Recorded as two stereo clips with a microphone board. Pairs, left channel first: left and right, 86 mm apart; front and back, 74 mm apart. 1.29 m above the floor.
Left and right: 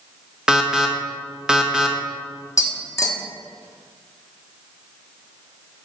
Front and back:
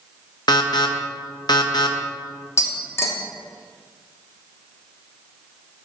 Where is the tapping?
45° left, 1.1 m.